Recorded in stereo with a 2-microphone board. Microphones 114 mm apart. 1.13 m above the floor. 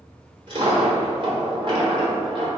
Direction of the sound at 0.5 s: 45° right (ahead or behind).